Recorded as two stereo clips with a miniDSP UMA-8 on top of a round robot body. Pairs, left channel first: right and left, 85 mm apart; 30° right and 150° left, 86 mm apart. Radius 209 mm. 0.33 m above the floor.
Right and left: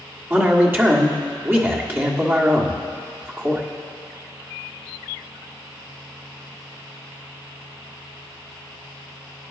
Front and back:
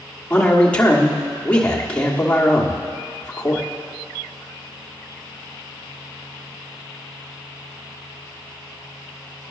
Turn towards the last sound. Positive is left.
turn(degrees=45)